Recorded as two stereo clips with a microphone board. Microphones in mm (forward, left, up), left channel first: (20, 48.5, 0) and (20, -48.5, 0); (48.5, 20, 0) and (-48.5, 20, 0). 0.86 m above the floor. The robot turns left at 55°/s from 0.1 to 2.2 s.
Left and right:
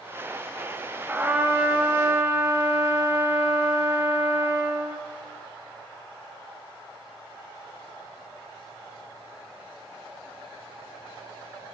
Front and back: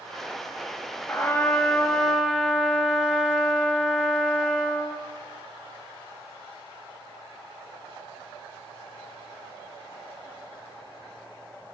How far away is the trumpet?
About 0.7 m.